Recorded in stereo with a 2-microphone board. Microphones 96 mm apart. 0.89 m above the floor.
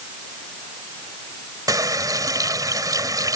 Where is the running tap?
40° right (ahead or behind).